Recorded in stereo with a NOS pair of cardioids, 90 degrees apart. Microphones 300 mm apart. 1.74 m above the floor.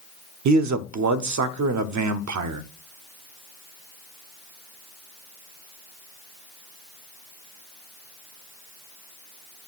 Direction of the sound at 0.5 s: 65° right.